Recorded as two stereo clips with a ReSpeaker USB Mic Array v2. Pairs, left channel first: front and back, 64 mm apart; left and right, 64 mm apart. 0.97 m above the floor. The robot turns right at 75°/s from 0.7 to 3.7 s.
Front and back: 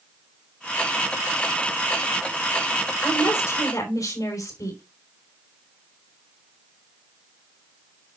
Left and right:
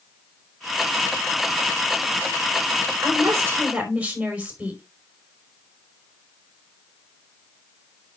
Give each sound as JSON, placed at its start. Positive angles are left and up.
{"t": 3.0, "sound": "a woman speaking", "azimuth_deg": -70, "distance_m": 5.0}